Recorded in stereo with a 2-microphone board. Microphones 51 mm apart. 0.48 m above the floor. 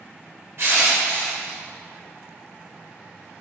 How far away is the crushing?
About 2 m.